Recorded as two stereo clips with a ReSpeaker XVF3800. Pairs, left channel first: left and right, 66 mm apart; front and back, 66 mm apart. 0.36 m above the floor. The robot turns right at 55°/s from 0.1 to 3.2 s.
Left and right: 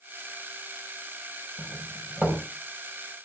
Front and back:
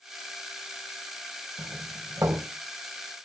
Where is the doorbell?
165° left, 2.5 m; by 2.4 s 145° right, 2.5 m.